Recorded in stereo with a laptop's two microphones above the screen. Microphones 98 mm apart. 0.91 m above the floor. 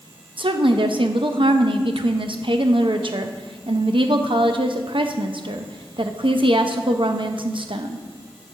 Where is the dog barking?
No dog barking in this recording.